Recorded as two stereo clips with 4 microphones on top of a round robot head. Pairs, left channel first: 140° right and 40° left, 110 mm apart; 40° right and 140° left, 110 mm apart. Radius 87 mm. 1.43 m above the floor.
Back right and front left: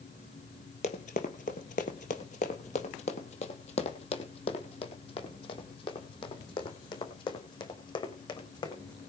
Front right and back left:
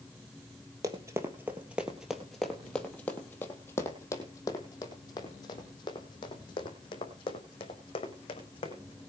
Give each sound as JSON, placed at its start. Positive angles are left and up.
{"t": 0.8, "sound": "running footsteps", "azimuth_deg": -160, "distance_m": 2.0}